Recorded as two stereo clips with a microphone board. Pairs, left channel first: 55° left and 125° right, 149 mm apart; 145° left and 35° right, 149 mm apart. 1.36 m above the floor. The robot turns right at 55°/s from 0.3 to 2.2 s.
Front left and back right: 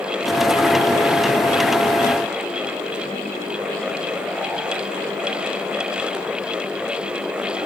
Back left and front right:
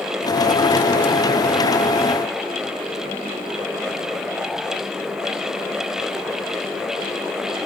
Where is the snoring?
I don't hear snoring.